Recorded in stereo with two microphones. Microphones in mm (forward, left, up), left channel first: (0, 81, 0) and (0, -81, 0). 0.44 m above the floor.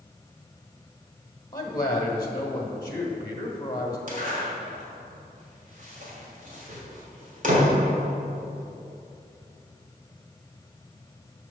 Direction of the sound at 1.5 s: 25° left (ahead or behind).